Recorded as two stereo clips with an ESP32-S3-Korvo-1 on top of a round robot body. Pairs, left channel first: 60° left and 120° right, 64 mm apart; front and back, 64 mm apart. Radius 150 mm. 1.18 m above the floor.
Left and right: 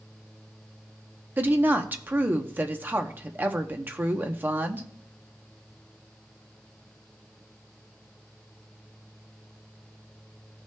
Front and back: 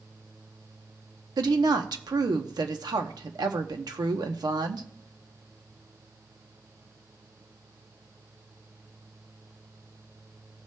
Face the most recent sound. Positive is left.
turn(degrees=180)